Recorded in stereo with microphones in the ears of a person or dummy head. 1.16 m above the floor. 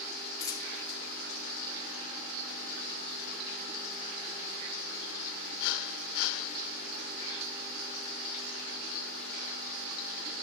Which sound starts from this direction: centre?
A dropped coin, at 0.4 s.